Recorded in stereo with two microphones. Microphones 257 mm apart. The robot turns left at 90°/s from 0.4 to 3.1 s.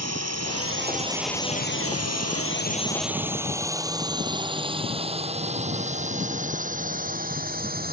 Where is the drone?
75° right (ahead or behind); by 7.9 s 35° right (ahead or behind).